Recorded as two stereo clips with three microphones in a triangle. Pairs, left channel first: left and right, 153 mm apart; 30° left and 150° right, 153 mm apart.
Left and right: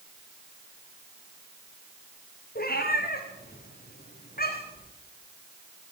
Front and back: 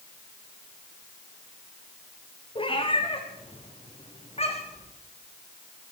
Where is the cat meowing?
85° left, 5 m; by 4.8 s 75° left, 6 m.